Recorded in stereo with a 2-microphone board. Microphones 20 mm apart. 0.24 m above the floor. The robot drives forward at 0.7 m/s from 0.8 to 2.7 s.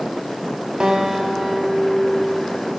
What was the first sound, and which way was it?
A guitar, 45° right (ahead or behind).